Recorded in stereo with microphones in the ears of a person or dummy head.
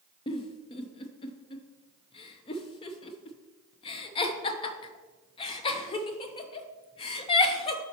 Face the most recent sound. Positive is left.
turn(degrees=30)  # may be behind; listen again after turning